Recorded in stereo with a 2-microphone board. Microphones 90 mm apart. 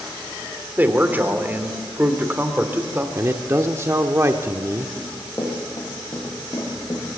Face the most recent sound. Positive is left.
turn(degrees=40)  # may be behind; listen again after turning